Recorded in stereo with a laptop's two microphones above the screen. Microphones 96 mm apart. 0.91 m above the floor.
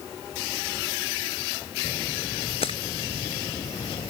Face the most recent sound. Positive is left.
turn(degrees=85)